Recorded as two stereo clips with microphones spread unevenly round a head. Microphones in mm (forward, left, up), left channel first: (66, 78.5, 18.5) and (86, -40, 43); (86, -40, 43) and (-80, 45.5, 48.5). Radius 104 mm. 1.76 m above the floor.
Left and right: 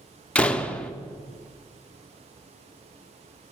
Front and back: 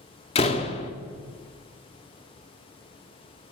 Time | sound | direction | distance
0.3 | a door slam | 5° left | 0.6 m